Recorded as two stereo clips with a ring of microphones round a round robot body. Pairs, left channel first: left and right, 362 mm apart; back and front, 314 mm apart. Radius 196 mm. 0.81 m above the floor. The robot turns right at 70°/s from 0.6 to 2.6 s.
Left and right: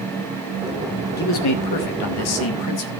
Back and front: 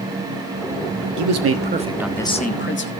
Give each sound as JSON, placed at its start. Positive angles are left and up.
{"t": 1.2, "sound": "a man speaking", "azimuth_deg": 25, "distance_m": 1.5}